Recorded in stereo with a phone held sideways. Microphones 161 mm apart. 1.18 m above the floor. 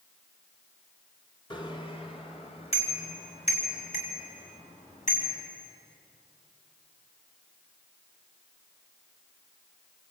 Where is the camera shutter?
No camera shutter in this recording.